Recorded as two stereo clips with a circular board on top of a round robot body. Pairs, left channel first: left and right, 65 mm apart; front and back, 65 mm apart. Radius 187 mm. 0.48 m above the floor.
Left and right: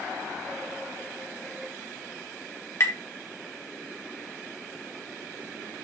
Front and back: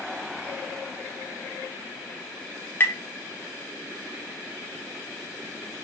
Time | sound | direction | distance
2.8 | tapping | 50° left | 2 m